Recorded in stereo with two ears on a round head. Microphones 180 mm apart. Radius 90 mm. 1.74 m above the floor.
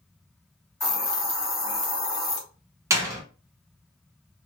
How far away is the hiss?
About 1.2 m.